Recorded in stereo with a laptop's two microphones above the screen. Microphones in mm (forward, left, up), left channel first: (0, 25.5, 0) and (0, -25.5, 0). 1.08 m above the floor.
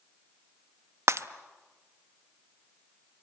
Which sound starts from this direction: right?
Breaking glass, at 1.1 s.